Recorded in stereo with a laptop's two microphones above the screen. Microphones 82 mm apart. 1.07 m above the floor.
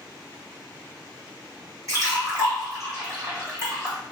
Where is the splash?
40° right (ahead or behind), 1.7 m.